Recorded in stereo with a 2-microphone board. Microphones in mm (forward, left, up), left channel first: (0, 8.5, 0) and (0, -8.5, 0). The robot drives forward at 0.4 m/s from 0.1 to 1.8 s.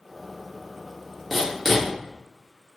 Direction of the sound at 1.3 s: 10° right (ahead or behind).